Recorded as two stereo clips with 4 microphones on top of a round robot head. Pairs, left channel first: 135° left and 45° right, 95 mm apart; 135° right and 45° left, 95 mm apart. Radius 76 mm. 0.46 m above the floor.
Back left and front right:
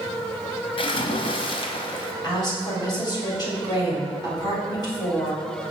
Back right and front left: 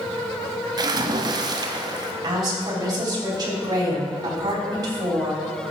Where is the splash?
95° left, 0.8 m.